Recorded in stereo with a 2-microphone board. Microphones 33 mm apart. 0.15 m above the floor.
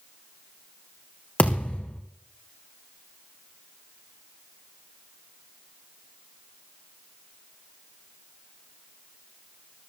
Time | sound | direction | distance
1.4 | a thud | 55° left (ahead or behind) | 4 m